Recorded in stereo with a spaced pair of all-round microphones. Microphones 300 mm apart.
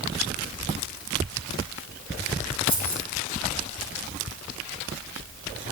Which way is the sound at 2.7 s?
65° right (ahead or behind).